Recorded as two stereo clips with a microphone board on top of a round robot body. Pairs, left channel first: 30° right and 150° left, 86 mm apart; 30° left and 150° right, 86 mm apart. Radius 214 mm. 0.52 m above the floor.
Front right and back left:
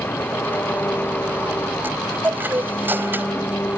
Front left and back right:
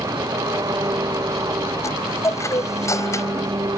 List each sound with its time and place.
0.0 s an engine running: 100° right
1.8 s a chime: 85° left